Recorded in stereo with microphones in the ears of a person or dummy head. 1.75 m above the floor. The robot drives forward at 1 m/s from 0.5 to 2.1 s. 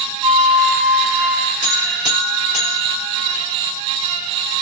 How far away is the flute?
About 0.8 m.